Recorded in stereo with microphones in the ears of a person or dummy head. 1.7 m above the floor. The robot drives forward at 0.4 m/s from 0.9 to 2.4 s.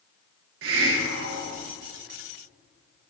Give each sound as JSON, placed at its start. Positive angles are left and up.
{"t": 0.6, "sound": "a hiss", "side_deg": -75, "distance_m": 0.7}